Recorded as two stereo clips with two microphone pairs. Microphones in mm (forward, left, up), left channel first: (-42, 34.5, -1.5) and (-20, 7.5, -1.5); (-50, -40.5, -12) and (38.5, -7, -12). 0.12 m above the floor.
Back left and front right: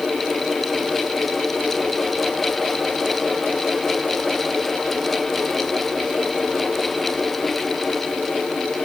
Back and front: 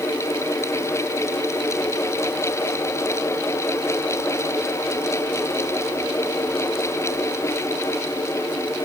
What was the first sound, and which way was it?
Only background noise.